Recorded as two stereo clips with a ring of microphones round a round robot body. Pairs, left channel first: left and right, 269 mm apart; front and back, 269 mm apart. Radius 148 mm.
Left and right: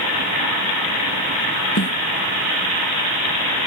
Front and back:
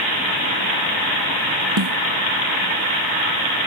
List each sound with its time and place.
1.8 s a snare drum: 145° left